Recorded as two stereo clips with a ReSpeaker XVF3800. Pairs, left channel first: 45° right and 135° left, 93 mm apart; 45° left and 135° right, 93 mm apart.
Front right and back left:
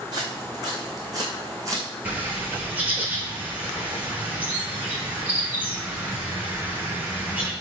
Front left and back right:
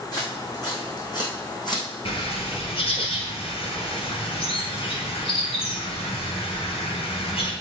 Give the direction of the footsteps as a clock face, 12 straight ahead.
9 o'clock.